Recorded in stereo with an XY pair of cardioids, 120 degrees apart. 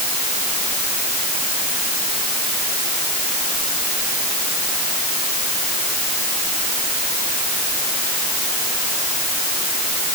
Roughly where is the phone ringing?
I don't hear a phone ringing.